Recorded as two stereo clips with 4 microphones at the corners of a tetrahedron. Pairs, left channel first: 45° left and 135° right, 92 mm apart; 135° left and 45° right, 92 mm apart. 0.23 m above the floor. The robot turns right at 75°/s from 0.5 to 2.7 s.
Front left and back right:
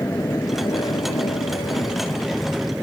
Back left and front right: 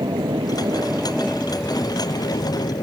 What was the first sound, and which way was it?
An aircraft, 10° right.